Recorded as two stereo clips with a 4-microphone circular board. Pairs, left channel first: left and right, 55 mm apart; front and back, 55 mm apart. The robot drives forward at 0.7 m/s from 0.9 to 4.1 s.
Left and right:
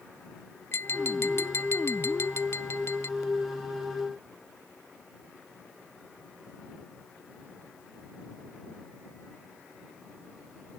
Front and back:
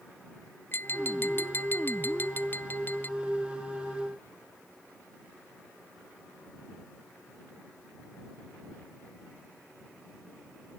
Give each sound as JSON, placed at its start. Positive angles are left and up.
{"t": 0.7, "sound": "tapping", "azimuth_deg": 50}